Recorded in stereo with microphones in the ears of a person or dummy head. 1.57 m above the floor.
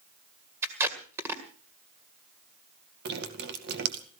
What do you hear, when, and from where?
0.6 s tape being pulled: 15° right (ahead or behind), 1.9 m
3.0 s dripping: 60° right (ahead or behind), 2 m